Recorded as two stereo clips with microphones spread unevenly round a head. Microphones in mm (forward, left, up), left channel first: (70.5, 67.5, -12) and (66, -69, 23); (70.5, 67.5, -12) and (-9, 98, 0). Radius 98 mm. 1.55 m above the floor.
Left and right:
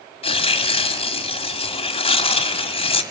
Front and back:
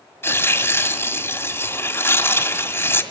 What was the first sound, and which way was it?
Tearing paper, 40° left.